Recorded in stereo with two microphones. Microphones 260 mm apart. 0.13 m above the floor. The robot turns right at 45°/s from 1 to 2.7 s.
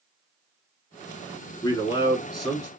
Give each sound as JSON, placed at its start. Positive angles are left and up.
{"t": 1.6, "sound": "a man speaking", "side_deg": 20, "distance_m": 1.0}